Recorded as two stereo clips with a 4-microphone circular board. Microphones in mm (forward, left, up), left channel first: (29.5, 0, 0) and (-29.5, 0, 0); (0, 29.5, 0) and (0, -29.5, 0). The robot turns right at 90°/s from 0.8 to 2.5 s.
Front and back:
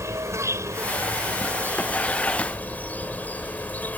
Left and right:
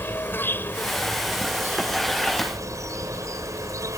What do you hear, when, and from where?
0.0 s an insect: 145° left; by 4.0 s 65° right